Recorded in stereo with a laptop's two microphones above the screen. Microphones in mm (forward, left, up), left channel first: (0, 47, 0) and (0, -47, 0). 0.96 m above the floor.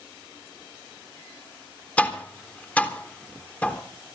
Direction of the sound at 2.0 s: 15° left (ahead or behind).